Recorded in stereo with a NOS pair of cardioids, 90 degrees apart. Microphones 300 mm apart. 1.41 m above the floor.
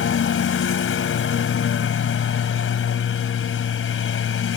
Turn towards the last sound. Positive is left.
turn(degrees=50)